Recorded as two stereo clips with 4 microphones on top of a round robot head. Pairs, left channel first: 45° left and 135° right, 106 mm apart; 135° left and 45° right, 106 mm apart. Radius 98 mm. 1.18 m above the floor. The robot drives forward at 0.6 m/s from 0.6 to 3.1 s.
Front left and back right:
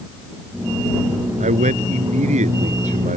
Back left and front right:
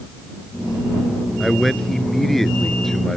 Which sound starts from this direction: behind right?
A man speaking, at 1.4 s.